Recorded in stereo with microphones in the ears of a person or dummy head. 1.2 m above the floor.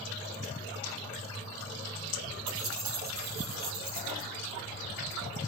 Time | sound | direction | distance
2.5 | keys jangling | 75° right (ahead or behind) | 1.8 m